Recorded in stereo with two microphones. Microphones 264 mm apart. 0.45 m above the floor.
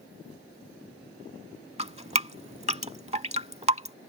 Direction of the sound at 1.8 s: 25° right (ahead or behind).